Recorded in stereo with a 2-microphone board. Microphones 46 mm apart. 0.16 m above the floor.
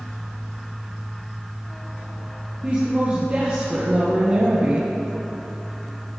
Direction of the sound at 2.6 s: 30° right (ahead or behind).